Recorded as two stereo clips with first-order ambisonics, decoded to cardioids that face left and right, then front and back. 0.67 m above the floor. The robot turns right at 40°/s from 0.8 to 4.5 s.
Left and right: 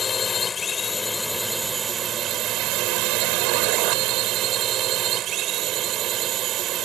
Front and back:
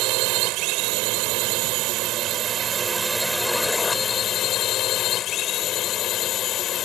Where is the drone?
165° left; by 6.9 s 50° right.